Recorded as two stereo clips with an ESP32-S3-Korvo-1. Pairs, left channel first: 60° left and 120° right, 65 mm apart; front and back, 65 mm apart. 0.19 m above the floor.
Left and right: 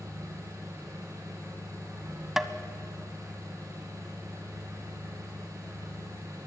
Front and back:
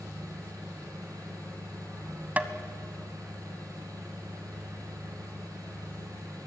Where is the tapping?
165° left, 0.9 m.